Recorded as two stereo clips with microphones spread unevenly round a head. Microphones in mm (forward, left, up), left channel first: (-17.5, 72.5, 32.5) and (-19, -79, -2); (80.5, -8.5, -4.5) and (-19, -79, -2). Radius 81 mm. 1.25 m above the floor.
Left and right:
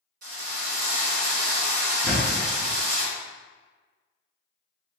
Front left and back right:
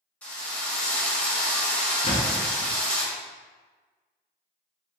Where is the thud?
Straight ahead, 0.9 m.